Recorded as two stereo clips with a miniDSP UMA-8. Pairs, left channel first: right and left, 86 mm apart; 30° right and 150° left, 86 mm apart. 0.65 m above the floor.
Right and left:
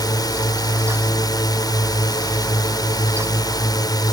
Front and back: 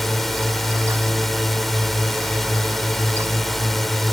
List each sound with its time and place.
0.0 s a drone: 120° right